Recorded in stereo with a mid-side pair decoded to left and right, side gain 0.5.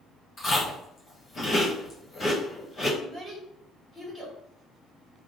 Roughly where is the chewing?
Ahead left.